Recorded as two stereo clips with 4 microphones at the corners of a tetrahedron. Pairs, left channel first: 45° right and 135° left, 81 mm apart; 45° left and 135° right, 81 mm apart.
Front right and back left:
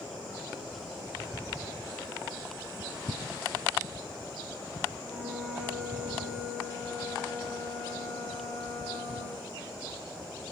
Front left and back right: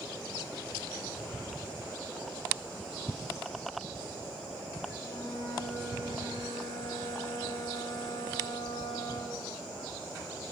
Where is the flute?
40° left, 1.5 m.